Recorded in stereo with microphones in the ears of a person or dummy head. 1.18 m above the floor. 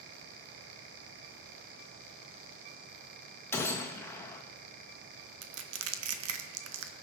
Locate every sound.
3.5 s a gunshot: 15° left (ahead or behind), 1.4 m
5.4 s crushing: 80° right, 1.1 m